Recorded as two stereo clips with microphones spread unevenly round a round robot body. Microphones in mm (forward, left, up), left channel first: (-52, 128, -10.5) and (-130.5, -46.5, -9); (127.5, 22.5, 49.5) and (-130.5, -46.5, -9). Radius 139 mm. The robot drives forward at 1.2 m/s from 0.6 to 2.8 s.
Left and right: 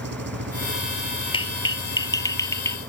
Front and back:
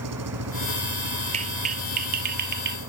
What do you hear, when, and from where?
0.0 s an engine running: 135° right; by 2.9 s 140° right
1.3 s a clap: 130° left; by 2.8 s 140° left